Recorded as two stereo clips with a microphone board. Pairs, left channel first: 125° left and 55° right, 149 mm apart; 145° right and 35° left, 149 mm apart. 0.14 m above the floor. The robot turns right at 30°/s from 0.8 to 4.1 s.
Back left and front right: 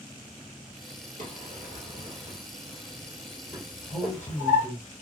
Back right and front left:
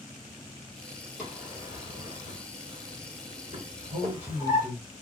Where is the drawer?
50° right, 1.6 m; by 4.7 s 40° left, 1.6 m.